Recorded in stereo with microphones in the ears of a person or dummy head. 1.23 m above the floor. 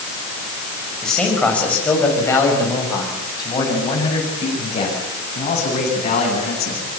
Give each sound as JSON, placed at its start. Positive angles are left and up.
{"t": 1.0, "sound": "a man speaking", "side_deg": 0, "distance_m": 6.0}